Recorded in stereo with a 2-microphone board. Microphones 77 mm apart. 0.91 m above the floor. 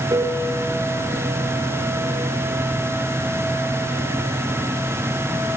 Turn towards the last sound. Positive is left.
turn(degrees=-70)  # may be behind; listen again after turning